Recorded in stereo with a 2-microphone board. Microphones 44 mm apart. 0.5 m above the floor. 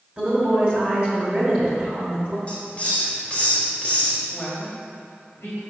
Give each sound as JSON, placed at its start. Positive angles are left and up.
{"t": 0.2, "sound": "a woman speaking", "side_deg": -30, "distance_m": 2.5}
{"t": 2.5, "sound": "a hiss", "side_deg": 30, "distance_m": 2.0}
{"t": 4.3, "sound": "a woman speaking", "side_deg": 65, "distance_m": 3.0}